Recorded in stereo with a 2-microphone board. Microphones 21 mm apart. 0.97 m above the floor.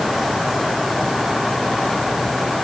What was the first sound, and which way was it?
Only background noise.